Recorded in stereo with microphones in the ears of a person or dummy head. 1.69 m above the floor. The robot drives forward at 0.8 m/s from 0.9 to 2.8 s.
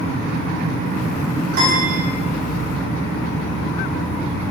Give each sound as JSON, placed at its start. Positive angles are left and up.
{"t": 1.5, "sound": "a piano", "side_deg": -55, "distance_m": 2.5}